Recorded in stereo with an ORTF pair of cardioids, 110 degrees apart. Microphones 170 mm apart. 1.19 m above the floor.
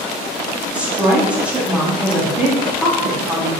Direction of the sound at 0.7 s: 5° right.